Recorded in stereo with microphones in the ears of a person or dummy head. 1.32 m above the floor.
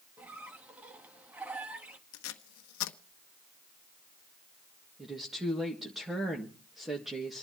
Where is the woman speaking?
5° right (ahead or behind), 1.8 m.